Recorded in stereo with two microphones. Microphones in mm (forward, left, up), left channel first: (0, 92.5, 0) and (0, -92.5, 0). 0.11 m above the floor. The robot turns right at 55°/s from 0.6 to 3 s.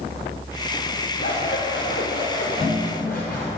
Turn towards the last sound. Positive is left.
turn(degrees=170)